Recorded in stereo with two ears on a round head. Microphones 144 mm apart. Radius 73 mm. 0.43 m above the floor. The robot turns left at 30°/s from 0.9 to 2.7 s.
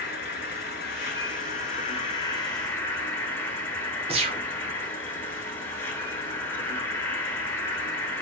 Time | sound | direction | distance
0.0 | an insect | 70° left | 1.0 m
4.1 | a gunshot | 35° right (ahead or behind) | 0.6 m